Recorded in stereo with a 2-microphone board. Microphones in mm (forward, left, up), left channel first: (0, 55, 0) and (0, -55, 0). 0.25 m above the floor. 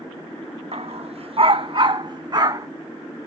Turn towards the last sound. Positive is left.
turn(degrees=-35)  # may be behind; listen again after turning